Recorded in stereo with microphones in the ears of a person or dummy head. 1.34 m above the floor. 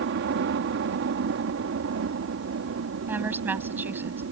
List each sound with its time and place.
0.0 s a helicopter: 60° right (ahead or behind); by 4.3 s 65° right (ahead or behind)
3.1 s a woman speaking: 10° right (ahead or behind)